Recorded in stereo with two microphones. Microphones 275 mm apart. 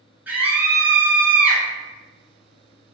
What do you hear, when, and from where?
0.3 s a scream: 5° right (ahead or behind), 1.3 m